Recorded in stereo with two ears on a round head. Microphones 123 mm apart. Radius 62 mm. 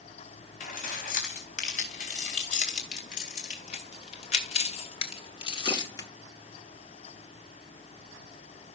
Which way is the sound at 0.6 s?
60° left (ahead or behind).